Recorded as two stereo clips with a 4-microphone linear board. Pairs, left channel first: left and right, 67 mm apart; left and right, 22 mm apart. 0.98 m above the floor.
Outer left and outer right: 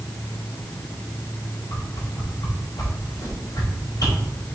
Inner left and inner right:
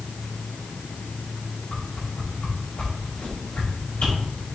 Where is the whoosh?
75° left (ahead or behind), 3.5 m.